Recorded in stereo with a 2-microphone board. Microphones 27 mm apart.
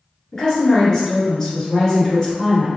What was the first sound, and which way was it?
A woman speaking, 25° left (ahead or behind).